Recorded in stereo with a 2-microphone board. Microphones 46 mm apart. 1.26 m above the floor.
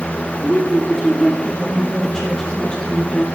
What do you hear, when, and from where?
0.4 s a woman speaking: 5° left (ahead or behind), 2 m; by 3.3 s 30° left (ahead or behind), 0.8 m